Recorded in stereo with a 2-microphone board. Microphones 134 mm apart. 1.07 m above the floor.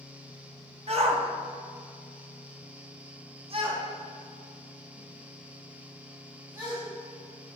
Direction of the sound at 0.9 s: 45° right (ahead or behind).